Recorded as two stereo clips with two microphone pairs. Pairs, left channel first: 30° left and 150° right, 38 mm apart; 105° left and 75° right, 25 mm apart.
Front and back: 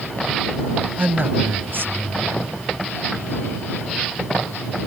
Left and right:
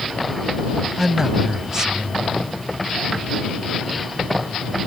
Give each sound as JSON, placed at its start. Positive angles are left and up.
{"t": 1.0, "sound": "a man speaking", "azimuth_deg": -135}